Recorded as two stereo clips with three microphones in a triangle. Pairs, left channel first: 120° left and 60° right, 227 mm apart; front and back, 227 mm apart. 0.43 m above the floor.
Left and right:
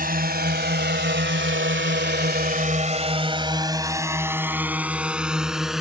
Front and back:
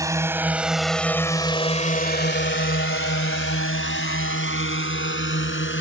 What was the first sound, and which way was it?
A drone, 105° right.